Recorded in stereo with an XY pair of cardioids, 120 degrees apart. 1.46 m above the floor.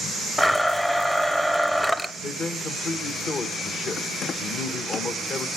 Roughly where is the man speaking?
Ahead left.